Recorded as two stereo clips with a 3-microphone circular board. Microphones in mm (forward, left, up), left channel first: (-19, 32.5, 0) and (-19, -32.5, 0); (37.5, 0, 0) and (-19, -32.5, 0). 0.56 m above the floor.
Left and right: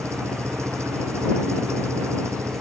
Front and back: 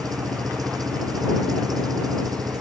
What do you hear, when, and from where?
0.0 s an engine running: 135° right